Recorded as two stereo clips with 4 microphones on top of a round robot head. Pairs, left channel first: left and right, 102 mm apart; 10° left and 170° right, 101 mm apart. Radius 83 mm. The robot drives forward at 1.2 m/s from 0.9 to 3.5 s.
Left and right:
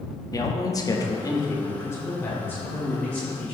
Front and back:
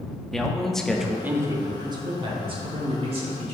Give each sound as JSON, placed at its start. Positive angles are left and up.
{"t": 0.3, "sound": "a man speaking", "azimuth_deg": 95, "distance_m": 1.2}